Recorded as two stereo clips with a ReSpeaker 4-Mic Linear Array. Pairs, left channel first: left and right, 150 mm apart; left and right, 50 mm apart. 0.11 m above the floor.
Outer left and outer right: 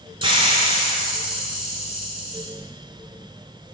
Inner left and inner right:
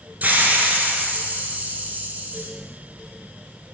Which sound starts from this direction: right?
A hiss, at 0.2 s.